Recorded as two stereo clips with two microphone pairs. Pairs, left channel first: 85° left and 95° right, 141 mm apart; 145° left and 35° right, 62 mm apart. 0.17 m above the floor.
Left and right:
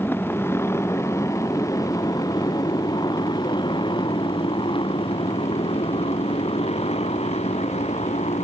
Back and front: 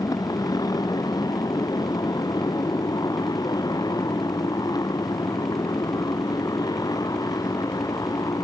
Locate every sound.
0.0 s a motorcycle: 160° left; by 8.4 s 125° left